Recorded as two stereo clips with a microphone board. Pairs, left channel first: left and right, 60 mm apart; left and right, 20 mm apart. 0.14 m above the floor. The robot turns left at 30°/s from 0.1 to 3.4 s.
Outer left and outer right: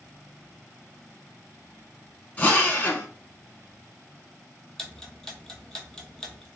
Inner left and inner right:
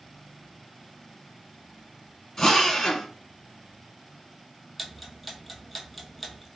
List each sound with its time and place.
2.4 s a drill: 25° left (ahead or behind), 0.8 m
4.8 s ticking: 10° left (ahead or behind), 0.7 m